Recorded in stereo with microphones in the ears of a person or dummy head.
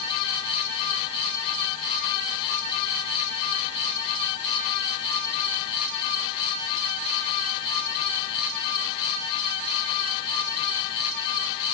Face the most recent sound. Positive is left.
No sound to turn to.